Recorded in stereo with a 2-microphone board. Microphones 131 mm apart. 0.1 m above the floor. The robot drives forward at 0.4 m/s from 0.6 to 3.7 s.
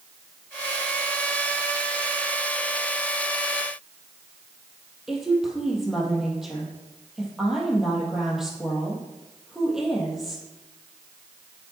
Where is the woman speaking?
5° right (ahead or behind), 3 m.